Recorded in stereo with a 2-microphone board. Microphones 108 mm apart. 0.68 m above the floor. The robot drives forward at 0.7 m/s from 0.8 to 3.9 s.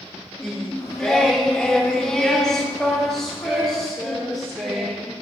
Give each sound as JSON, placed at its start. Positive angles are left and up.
{"t": 0.4, "sound": "singing", "side_deg": 5, "distance_m": 0.9}